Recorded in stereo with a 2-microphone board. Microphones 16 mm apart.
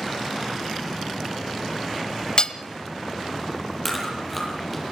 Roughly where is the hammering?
Left.